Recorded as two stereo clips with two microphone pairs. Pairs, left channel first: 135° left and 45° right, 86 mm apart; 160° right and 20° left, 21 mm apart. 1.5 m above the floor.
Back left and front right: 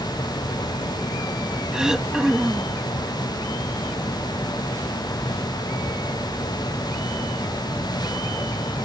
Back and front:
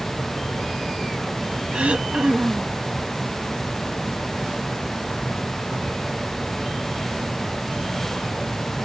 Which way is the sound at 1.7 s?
35° left.